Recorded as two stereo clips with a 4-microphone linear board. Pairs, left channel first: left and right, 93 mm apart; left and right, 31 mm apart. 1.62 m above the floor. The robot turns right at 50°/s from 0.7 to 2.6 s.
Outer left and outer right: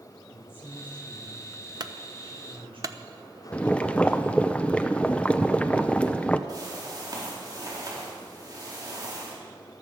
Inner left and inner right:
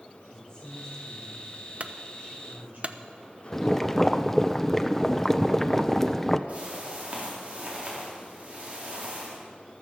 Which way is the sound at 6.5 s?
45° right (ahead or behind).